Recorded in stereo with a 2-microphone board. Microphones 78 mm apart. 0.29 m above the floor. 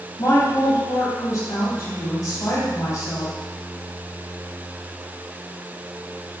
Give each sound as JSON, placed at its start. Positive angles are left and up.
{"t": 0.2, "sound": "a woman speaking", "side_deg": 45, "distance_m": 1.9}